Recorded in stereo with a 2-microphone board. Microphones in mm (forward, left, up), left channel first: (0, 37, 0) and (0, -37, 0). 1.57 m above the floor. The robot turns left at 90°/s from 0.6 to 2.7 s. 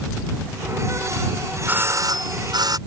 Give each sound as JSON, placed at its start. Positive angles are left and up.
{"t": 1.7, "sound": "a doorbell", "azimuth_deg": -20}